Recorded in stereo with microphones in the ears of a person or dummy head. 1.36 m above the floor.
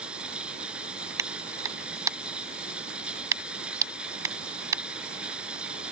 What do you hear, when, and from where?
0.0 s running water: 5° right (ahead or behind)
1.2 s a clap: 20° right (ahead or behind)